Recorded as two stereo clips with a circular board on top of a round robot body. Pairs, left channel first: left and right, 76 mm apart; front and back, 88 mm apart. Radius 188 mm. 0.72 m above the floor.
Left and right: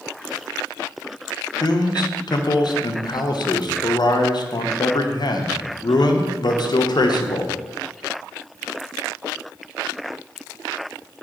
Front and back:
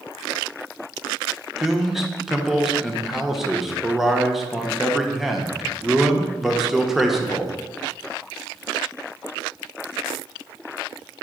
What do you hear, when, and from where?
1.6 s a man speaking: 95° left, 1.1 m